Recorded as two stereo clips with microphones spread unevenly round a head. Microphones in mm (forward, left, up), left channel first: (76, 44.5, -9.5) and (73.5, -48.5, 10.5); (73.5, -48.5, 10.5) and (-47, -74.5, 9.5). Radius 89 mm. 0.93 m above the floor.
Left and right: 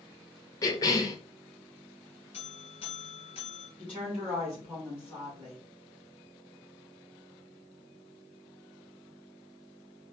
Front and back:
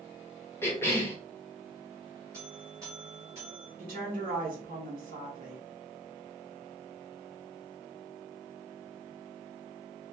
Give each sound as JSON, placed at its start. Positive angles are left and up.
{"t": 0.6, "sound": "a cough", "azimuth_deg": 80, "distance_m": 0.8}
{"t": 2.3, "sound": "a buzzer", "azimuth_deg": 120, "distance_m": 1.7}
{"t": 3.8, "sound": "a woman speaking", "azimuth_deg": 180, "distance_m": 2.5}